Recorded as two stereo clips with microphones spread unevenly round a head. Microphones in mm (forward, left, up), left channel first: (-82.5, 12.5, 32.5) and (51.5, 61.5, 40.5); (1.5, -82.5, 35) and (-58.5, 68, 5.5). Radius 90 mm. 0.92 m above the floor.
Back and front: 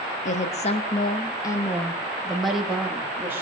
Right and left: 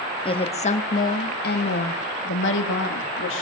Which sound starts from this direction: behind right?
A woman speaking, at 0.2 s.